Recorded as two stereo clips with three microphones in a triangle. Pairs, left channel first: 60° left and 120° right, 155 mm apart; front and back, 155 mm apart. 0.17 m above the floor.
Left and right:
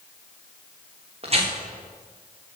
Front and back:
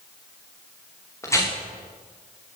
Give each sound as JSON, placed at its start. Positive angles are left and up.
{"t": 1.2, "sound": "tearing paper", "azimuth_deg": -70, "distance_m": 6.0}